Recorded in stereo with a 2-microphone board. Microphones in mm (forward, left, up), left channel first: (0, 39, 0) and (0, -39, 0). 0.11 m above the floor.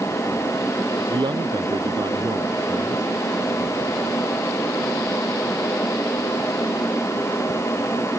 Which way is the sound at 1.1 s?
70° right (ahead or behind).